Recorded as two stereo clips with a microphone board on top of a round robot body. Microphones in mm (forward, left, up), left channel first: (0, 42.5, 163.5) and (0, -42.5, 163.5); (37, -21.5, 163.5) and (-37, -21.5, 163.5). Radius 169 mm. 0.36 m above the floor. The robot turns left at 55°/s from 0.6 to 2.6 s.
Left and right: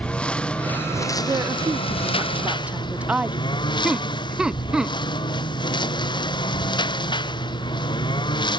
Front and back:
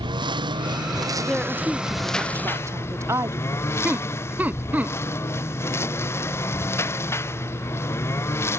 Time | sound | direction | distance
0.0 | a lawn mower | 170° left | ?
1.3 | a woman speaking | 85° right | ?
3.8 | laughter | 160° right | ?